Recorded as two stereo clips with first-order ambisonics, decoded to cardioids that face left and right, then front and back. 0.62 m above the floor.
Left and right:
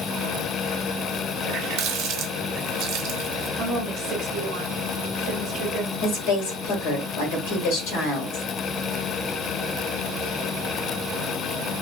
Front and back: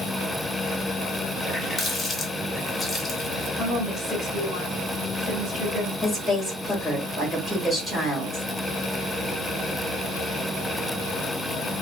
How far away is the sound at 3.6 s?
About 1.1 m.